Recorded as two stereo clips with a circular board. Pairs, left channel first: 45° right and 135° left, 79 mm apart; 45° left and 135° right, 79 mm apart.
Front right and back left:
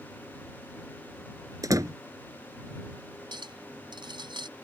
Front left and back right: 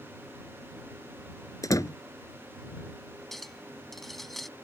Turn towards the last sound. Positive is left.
turn(degrees=135)